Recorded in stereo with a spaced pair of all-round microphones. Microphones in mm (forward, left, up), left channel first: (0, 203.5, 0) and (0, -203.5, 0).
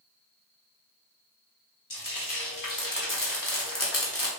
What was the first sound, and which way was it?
Frying, 50° left (ahead or behind).